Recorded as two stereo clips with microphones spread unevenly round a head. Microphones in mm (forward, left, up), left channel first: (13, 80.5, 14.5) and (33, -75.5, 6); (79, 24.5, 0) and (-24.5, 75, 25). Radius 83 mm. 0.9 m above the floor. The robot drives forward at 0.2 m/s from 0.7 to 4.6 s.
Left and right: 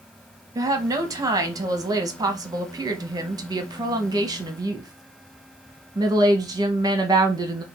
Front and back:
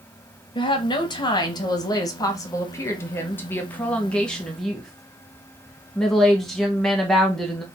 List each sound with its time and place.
0.6 s a woman speaking: 25° right, 1.2 m; by 7.6 s 80° right, 0.8 m